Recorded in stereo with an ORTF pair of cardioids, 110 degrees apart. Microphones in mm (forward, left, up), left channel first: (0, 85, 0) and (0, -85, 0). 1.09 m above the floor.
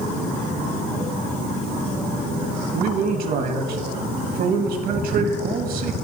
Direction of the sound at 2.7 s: 60° right.